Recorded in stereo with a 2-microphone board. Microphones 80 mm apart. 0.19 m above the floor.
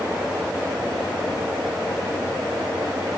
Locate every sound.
Only background noise.